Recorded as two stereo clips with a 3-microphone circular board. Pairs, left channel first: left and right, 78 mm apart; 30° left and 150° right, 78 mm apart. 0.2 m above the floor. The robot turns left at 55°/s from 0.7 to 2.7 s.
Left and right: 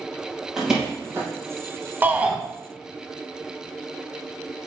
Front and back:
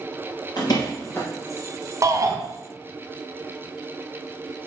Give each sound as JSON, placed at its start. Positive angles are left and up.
{"t": 0.6, "sound": "a door slam", "azimuth_deg": -10, "distance_m": 3.5}
{"t": 2.0, "sound": "a shout", "azimuth_deg": -145, "distance_m": 1.3}